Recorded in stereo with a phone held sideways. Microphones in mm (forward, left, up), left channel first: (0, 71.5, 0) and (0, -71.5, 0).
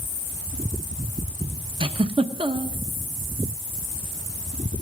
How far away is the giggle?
About 0.6 m.